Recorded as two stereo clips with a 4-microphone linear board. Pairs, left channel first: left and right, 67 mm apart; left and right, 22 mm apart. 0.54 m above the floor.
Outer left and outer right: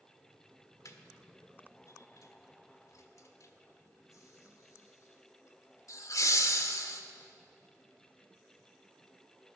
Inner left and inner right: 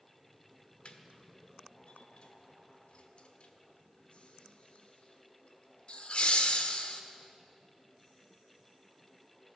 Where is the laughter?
55° left (ahead or behind), 1.3 m.